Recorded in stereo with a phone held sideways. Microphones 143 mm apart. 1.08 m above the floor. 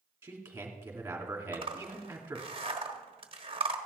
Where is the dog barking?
No dog barking in this recording.